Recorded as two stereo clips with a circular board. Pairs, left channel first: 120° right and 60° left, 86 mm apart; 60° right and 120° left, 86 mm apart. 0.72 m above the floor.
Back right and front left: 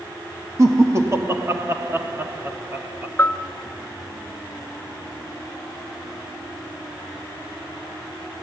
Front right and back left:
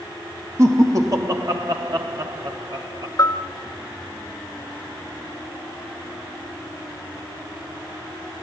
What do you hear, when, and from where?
0.6 s laughter: 85° left, 1.4 m; by 3.1 s 120° left, 2.5 m
3.2 s a bell: 70° right, 0.8 m